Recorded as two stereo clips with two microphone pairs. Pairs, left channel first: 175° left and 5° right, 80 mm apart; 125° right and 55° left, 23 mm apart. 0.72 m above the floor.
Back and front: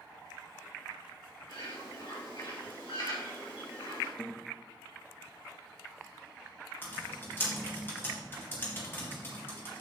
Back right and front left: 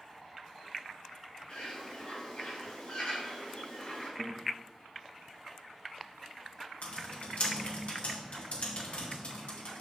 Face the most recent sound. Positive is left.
turn(degrees=-130)